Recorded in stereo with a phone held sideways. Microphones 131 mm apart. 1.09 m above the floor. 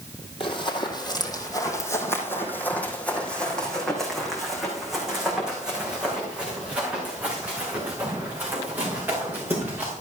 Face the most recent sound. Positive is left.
turn(degrees=-15)  # may be behind; listen again after turning